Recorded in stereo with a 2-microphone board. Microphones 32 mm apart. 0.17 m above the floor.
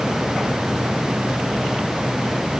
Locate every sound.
Only background noise.